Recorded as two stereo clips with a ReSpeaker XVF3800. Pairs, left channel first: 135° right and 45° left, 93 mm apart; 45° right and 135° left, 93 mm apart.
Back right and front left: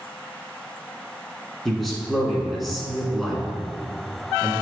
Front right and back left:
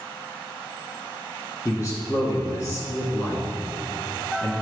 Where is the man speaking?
45° right, 1.7 m.